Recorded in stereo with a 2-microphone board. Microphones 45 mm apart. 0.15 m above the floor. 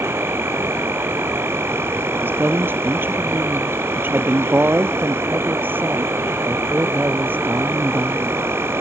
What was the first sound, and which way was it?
An insect, 65° right (ahead or behind).